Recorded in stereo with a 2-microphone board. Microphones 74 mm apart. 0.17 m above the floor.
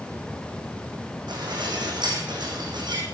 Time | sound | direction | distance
1.3 | dishes clattering | 80° right | 6 m